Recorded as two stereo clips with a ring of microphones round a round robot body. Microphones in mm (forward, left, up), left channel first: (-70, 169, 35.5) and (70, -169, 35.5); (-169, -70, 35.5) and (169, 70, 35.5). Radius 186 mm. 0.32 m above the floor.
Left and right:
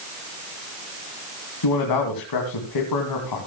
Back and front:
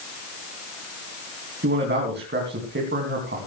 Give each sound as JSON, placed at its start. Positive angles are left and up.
{"t": 1.6, "sound": "a man speaking", "azimuth_deg": 85, "distance_m": 3.0}